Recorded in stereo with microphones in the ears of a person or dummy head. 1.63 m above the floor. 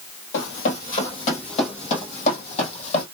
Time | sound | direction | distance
0.3 | running footsteps | 50° left (ahead or behind) | 2.5 m